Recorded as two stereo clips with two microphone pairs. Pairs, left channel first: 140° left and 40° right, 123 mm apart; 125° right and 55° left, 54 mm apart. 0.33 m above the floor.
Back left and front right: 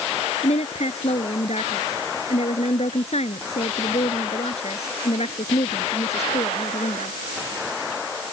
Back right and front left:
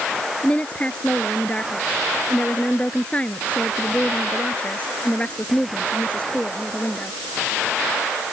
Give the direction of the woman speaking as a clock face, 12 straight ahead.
6 o'clock.